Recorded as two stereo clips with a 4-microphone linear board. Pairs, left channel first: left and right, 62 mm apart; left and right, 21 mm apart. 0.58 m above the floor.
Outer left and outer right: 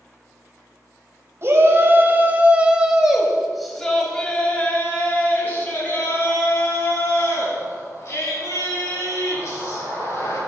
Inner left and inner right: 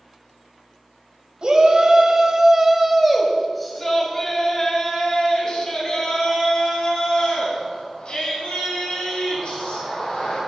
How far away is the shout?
About 3.5 m.